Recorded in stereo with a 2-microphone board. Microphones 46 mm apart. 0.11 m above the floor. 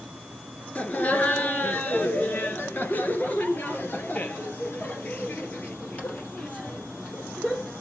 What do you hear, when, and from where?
0.8 s laughter: 35° left (ahead or behind), 2 m; by 7.7 s 30° left (ahead or behind), 4 m